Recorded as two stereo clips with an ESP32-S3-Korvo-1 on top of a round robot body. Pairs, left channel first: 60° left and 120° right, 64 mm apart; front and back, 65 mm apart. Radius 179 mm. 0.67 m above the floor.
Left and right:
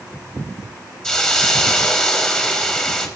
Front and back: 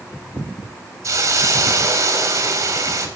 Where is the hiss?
135° left, 2 m.